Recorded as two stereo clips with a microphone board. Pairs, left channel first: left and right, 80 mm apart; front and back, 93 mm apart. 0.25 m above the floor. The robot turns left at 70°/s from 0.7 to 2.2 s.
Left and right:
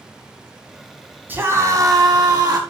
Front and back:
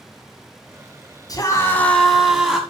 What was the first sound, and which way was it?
A scream, 30° right.